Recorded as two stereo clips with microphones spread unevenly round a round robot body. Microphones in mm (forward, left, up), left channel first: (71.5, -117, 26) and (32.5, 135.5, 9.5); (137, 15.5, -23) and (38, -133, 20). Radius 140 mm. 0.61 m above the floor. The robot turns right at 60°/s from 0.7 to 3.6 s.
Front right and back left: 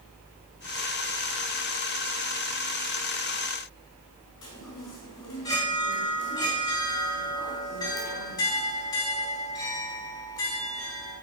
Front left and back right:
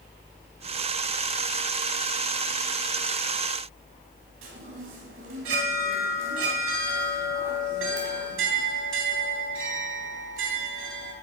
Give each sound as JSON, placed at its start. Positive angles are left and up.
{"t": 4.4, "sound": "a chime", "azimuth_deg": -160, "distance_m": 3.0}